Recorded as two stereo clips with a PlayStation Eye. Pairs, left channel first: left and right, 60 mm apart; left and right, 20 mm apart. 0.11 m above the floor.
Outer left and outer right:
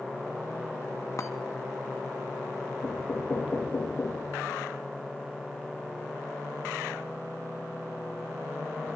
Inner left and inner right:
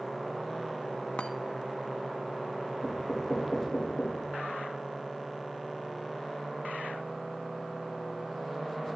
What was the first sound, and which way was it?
A chime, 60° left (ahead or behind).